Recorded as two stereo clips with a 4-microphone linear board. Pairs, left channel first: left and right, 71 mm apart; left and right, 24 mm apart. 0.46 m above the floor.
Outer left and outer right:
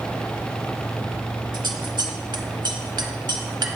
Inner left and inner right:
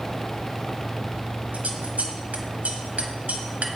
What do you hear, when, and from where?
1.5 s scissors: 85° right, 0.7 m